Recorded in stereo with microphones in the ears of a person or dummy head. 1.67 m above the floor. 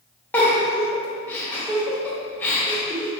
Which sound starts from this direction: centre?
A giggle, at 0.3 s.